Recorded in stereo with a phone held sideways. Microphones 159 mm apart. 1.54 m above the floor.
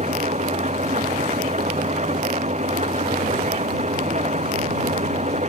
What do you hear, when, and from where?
0.0 s an engine running: 45° right (ahead or behind)